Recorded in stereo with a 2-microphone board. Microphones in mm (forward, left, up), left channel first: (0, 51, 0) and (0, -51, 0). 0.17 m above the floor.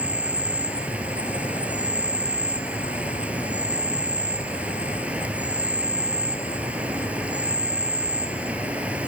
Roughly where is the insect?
Centre.